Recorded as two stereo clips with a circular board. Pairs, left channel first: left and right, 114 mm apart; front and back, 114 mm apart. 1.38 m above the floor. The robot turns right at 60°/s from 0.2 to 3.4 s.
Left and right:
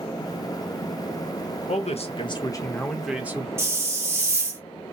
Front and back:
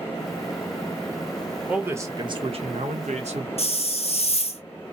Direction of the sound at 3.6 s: 25° right.